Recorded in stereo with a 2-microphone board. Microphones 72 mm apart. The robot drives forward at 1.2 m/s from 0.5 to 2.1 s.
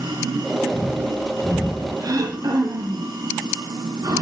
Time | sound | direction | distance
0.0 | running water | 85° right | 9.5 m
2.0 | throat clearing | 60° right (ahead or behind) | 5 m